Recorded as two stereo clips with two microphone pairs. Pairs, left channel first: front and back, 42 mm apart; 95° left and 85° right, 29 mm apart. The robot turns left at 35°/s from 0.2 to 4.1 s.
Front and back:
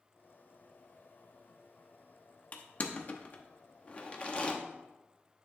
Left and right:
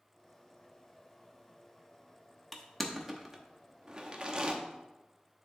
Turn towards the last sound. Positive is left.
turn(degrees=-40)